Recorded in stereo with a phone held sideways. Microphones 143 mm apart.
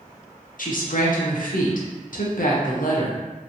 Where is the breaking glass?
I don't hear breaking glass.